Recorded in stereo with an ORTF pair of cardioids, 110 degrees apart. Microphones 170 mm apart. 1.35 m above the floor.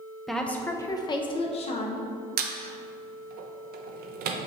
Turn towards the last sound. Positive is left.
turn(degrees=-70)